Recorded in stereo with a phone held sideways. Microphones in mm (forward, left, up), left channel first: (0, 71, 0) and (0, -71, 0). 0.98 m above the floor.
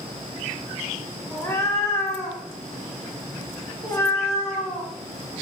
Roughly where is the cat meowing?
Centre.